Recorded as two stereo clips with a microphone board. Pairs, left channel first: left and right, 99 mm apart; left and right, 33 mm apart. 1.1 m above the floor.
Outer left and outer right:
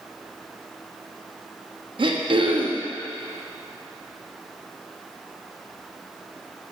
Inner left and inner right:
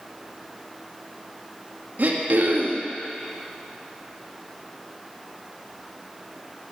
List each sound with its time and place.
2.0 s throat clearing: 60° right (ahead or behind), 0.7 m